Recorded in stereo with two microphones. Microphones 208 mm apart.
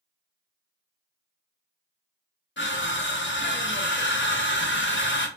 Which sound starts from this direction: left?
Crushing, at 2.6 s.